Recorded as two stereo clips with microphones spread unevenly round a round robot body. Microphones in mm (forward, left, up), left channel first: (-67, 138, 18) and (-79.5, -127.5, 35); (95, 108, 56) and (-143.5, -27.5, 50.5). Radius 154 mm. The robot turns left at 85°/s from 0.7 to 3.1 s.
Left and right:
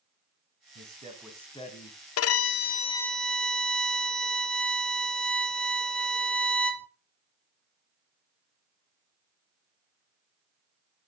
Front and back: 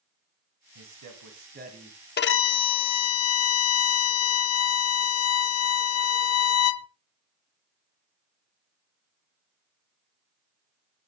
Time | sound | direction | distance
0.8 | a man speaking | 130° right | 2.5 m
2.2 | a violin | 80° left | 0.6 m